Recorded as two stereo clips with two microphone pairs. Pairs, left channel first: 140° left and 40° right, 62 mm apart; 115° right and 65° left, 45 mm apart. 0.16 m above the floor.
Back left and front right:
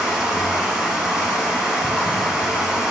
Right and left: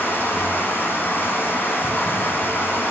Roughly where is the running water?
Behind right.